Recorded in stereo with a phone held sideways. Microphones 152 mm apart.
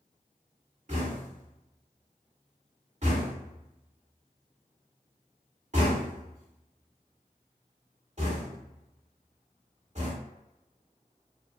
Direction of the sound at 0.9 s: 50° right (ahead or behind).